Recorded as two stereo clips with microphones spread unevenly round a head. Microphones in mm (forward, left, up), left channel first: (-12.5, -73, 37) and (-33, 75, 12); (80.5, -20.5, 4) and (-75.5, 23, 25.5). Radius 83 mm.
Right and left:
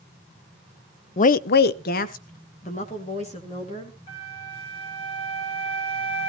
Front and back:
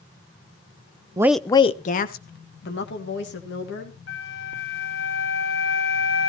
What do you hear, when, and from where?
1.2 s a woman speaking: 125° right, 0.5 m; by 4.0 s 25° right, 2.5 m
4.1 s a flute: 20° right, 3.5 m